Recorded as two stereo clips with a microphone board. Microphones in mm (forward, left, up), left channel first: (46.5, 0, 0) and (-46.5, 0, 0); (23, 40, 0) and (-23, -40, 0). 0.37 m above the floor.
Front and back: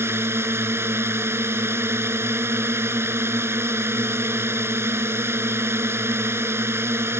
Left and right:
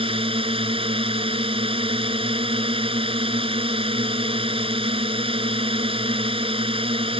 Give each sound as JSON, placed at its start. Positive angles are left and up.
{"t": 0.0, "sound": "a drone", "azimuth_deg": -120}